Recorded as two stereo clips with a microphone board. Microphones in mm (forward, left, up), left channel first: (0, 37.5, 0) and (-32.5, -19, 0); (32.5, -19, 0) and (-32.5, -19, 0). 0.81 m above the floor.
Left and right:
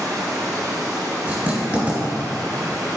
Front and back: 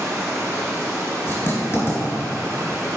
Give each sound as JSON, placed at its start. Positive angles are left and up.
{"t": 0.0, "sound": "running water", "azimuth_deg": -135, "distance_m": 2.5}
{"t": 1.3, "sound": "writing", "azimuth_deg": -55, "distance_m": 2.5}